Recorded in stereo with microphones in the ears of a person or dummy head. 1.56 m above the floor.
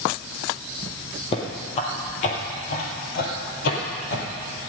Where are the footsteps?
30° left (ahead or behind), 2.5 m; by 4.2 s 60° left (ahead or behind), 3 m.